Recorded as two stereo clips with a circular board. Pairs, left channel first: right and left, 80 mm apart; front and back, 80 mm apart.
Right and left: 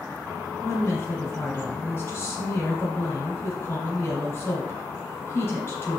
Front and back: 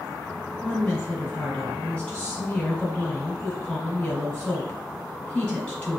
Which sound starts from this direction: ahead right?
A woman speaking, at 0.6 s.